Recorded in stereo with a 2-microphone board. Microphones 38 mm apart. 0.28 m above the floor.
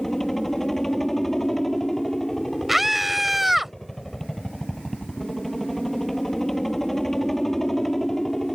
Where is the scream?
5° right (ahead or behind).